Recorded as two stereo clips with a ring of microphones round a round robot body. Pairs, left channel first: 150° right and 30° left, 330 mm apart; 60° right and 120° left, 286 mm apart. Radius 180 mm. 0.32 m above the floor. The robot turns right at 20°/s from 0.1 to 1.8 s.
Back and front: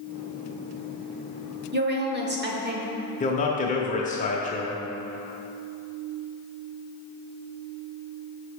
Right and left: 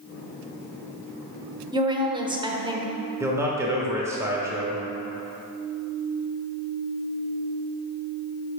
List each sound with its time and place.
1.7 s a woman speaking: 55° left, 1.0 m
3.2 s a man speaking: 175° right, 0.9 m